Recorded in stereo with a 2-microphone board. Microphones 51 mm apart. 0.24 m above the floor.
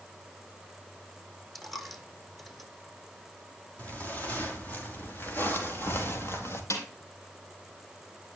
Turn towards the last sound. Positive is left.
turn(degrees=65)  # may be behind; listen again after turning